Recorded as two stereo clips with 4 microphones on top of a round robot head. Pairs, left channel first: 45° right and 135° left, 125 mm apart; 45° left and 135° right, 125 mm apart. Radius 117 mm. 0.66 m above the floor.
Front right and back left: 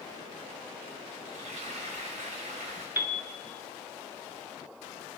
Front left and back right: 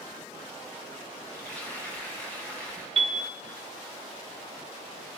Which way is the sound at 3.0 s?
155° right.